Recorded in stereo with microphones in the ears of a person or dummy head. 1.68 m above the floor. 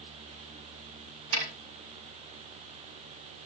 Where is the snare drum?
90° right, 7.5 m.